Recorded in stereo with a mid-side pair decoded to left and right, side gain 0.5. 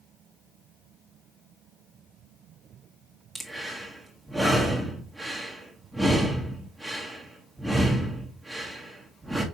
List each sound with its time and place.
3.4 s breathing: 10° right, 1.5 m